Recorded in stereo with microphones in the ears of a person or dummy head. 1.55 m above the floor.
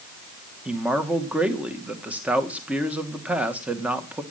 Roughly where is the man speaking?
Centre.